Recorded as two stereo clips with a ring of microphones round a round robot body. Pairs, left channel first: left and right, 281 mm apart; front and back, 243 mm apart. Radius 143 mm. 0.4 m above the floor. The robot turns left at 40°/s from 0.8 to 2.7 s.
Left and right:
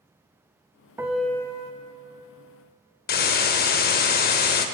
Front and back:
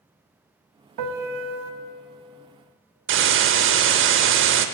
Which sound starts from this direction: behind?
A piano, at 1.0 s.